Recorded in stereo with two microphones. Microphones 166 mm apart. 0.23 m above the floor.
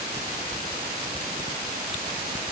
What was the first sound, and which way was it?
Only background noise.